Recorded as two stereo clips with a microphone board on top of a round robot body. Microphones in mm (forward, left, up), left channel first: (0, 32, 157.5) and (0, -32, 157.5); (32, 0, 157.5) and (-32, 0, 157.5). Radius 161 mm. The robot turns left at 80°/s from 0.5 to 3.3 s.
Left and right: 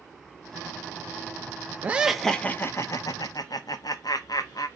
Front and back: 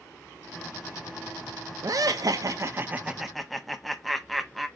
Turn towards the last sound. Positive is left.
turn(degrees=90)